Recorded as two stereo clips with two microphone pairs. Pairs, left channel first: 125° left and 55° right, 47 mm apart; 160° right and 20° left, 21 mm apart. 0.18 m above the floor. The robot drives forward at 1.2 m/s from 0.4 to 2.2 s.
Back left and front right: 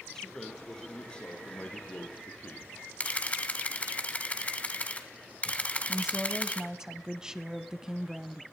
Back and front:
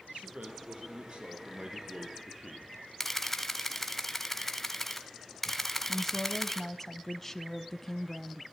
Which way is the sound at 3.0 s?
140° left.